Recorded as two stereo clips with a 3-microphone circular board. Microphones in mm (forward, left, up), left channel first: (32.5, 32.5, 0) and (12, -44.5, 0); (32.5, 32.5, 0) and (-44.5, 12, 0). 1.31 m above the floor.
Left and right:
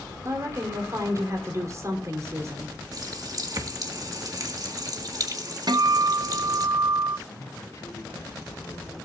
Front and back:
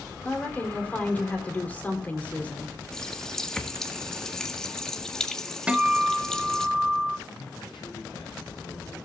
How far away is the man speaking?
About 7.5 m.